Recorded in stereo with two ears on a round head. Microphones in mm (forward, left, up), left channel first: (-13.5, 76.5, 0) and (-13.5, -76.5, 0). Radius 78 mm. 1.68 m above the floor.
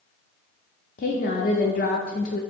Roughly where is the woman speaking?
Left.